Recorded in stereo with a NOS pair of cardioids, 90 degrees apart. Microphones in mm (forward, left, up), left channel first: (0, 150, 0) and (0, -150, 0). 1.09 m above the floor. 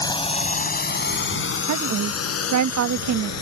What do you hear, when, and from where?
0.0 s a drone: 15° left; by 3.4 s 60° left
1.7 s a woman speaking: 70° right